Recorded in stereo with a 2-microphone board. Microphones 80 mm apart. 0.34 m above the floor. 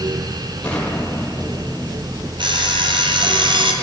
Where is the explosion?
15° left (ahead or behind), 7.5 m.